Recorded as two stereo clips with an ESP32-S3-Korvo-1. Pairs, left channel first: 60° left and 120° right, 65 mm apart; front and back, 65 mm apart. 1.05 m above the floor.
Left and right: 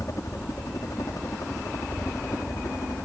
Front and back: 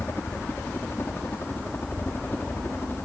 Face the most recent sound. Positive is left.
turn(degrees=45)